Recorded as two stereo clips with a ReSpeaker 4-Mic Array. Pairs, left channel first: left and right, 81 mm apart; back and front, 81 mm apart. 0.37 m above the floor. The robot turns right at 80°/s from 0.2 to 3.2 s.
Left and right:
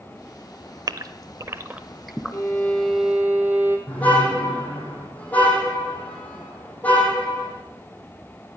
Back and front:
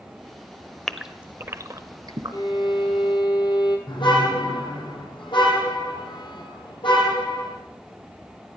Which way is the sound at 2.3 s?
135° left.